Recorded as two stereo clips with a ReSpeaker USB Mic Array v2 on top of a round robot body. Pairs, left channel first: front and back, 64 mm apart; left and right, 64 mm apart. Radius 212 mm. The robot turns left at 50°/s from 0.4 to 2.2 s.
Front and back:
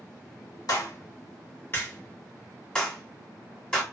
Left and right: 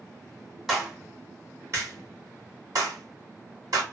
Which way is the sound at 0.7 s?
Straight ahead.